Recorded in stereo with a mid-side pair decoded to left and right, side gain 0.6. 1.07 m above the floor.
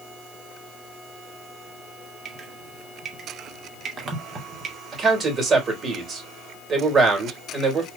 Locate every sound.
2.2 s dripping: 35° right, 2 m
4.9 s a man speaking: 35° right, 3.5 m